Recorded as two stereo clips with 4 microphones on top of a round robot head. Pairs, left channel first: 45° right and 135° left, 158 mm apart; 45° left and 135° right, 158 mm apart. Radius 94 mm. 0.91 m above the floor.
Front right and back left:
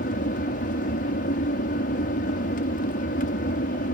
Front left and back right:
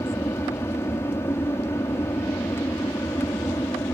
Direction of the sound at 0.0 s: 30° right.